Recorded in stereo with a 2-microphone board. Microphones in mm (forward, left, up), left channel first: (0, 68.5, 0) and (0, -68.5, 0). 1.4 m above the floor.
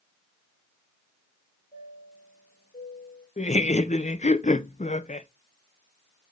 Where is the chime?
70° left (ahead or behind), 3 m.